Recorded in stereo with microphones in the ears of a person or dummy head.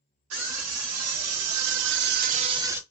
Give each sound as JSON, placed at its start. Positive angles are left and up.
{"t": 0.3, "sound": "a scream", "side_deg": -80, "distance_m": 1.8}